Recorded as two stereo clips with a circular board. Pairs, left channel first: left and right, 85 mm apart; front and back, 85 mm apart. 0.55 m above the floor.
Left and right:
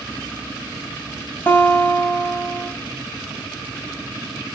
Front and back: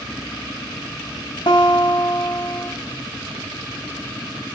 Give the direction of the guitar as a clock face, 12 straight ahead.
11 o'clock.